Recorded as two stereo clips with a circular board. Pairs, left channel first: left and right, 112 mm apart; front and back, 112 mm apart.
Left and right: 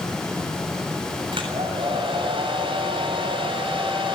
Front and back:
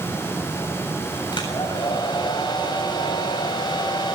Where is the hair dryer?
50° right, 7.5 m.